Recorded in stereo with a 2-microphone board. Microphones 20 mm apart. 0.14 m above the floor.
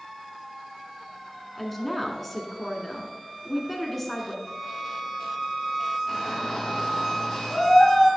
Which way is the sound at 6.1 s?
15° left (ahead or behind).